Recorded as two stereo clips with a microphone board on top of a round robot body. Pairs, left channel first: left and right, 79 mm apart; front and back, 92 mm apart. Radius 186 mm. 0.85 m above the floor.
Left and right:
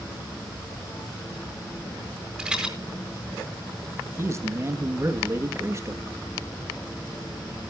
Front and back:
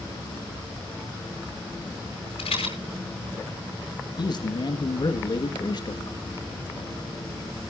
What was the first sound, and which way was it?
A rattle, 10° right.